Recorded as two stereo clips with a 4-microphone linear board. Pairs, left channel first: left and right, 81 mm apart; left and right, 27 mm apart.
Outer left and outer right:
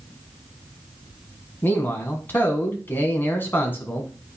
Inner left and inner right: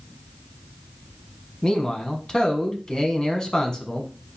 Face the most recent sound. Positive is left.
turn(degrees=25)  # may be behind; listen again after turning